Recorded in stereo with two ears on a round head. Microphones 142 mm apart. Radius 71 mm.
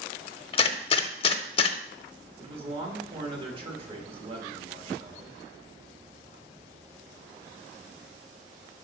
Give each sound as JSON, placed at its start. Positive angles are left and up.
{"t": 0.5, "sound": "a gunshot", "side_deg": 35, "distance_m": 0.6}
{"t": 2.4, "sound": "a man speaking", "side_deg": -35, "distance_m": 1.6}